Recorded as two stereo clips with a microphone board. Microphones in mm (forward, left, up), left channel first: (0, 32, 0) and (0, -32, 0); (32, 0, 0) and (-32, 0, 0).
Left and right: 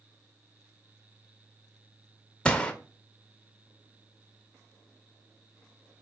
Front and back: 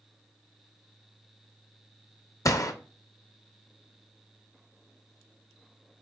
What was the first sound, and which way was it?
A gunshot, 20° left.